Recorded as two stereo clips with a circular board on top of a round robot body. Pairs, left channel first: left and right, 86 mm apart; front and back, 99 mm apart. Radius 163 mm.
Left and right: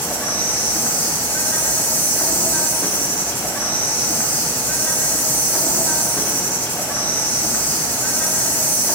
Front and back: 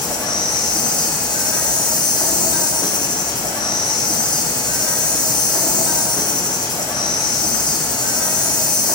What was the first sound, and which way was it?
An insect, 30° left.